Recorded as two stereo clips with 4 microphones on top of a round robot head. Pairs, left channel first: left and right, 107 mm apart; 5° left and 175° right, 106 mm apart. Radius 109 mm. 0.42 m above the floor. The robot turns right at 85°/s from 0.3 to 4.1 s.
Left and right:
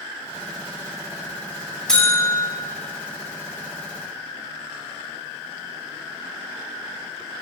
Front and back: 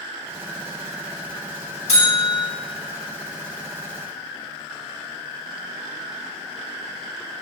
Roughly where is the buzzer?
Ahead.